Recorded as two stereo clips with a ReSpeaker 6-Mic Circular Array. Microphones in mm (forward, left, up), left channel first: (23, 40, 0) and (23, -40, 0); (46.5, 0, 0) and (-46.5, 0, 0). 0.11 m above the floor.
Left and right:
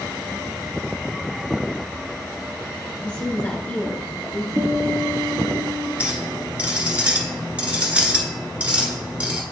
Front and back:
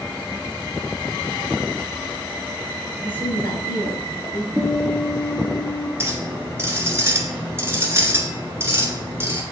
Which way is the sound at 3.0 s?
40° left.